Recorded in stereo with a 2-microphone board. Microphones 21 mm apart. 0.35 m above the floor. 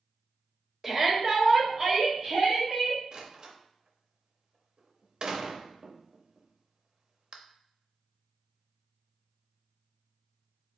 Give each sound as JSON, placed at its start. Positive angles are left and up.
{"t": 0.8, "sound": "a shout", "side_deg": -20, "distance_m": 1.4}
{"t": 3.1, "sound": "a door slam", "side_deg": -40, "distance_m": 0.7}